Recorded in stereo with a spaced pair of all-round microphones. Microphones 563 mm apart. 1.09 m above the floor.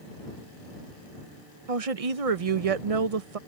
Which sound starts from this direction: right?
A woman speaking, at 1.7 s.